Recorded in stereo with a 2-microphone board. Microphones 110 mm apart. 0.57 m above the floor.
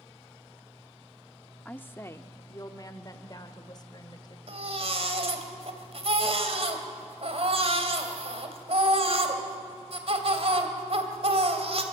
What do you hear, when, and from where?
1.6 s a woman speaking: 15° left (ahead or behind), 0.8 m; by 4.4 s 40° left (ahead or behind), 2.5 m
4.5 s a baby crying: 60° right (ahead or behind), 2.5 m